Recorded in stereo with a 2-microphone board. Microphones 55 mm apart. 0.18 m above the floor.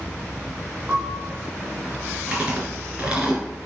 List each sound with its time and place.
0.9 s a piano: 35° right (ahead or behind), 2.5 m
2.3 s chewing: 20° right (ahead or behind), 3.5 m